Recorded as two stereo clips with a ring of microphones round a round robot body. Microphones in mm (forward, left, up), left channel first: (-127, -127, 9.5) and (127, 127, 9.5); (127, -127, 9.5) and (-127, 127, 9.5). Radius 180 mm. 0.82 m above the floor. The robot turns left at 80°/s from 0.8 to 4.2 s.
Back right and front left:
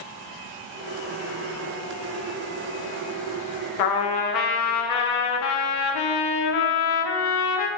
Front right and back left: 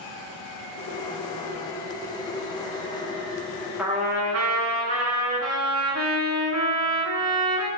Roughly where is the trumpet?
Behind right.